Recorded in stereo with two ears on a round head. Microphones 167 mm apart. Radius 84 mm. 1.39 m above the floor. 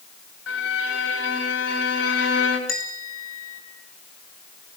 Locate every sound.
0.5 s a violin: 80° left, 5.5 m
2.7 s a bell: 85° left, 8 m